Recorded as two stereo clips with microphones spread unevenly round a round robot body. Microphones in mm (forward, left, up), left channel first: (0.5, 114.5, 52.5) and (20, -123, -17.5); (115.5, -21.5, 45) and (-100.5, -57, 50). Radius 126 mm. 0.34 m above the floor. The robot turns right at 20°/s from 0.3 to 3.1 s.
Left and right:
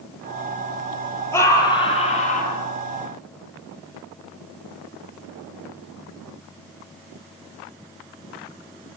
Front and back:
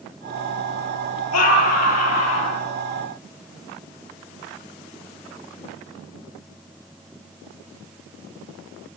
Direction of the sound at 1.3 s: 15° left.